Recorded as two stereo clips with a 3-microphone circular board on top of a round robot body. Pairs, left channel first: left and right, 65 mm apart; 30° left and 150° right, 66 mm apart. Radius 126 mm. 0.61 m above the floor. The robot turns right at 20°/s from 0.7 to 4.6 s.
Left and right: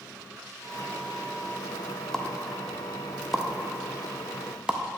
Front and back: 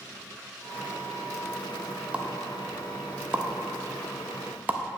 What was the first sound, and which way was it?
A pop, 165° left.